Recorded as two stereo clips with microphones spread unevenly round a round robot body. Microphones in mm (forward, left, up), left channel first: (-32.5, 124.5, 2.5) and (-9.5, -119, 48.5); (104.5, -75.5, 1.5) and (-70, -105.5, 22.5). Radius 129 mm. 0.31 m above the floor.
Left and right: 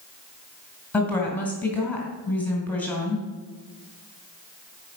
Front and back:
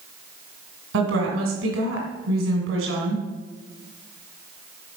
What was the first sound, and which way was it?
A woman speaking, 175° left.